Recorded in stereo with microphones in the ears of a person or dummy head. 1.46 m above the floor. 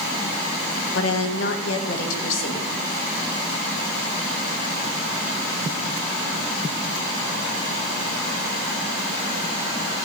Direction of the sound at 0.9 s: 80° left.